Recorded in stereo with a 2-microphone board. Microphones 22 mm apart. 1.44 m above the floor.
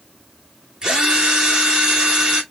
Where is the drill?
35° right (ahead or behind), 3 m.